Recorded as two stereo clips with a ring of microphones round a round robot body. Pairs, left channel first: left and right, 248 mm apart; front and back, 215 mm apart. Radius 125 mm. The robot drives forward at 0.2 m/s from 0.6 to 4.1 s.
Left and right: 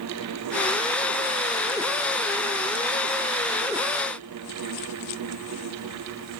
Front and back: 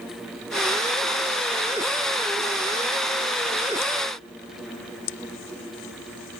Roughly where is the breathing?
No breathing in this recording.